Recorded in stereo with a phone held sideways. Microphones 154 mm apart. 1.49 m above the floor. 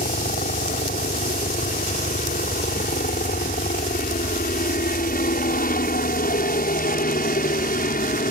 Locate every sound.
0.0 s a helicopter: 75° left (ahead or behind); by 8.3 s 70° left (ahead or behind)